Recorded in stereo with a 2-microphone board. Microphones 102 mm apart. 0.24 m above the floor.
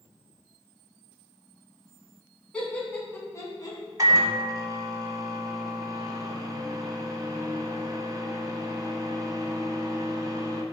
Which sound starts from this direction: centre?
Laughter, at 2.5 s.